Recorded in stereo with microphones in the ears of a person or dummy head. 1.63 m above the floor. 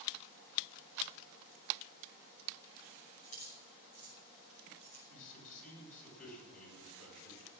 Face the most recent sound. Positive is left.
turn(degrees=50)  # may be behind; listen again after turning